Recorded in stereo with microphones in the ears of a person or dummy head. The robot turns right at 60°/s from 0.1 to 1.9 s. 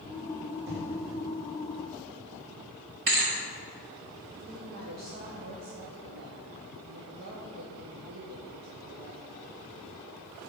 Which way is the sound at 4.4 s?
45° right (ahead or behind).